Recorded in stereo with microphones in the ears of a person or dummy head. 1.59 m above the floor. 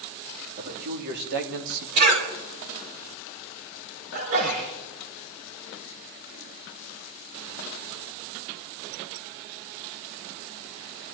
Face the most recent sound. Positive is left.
turn(degrees=-45)  # may be behind; listen again after turning